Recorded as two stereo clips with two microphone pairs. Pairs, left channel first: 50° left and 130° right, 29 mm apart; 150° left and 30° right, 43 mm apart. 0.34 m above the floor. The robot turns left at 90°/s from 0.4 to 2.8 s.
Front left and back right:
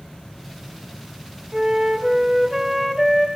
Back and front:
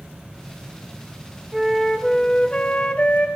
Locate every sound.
1.5 s a flute: 100° right, 1.0 m; by 3.3 s 145° left, 1.0 m